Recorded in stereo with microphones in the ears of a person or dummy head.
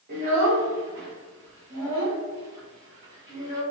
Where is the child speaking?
40° right (ahead or behind), 1.5 m; by 3.6 s 30° right (ahead or behind), 4 m.